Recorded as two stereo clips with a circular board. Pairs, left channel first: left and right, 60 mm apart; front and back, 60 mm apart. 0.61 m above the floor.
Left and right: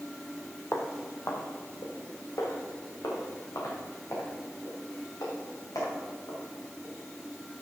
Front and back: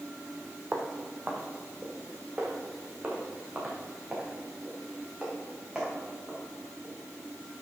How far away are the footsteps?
About 0.9 m.